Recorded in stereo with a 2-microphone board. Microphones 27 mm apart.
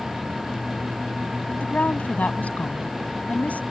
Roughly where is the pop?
I don't hear a pop.